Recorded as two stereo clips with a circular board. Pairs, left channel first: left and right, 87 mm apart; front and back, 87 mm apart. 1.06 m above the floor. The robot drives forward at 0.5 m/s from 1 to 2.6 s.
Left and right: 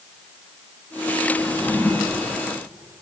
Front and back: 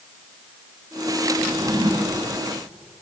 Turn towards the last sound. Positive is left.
turn(degrees=165)